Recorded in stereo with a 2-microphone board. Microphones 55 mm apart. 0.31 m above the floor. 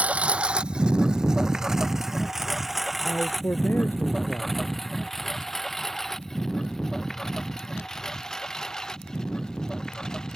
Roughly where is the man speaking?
Left.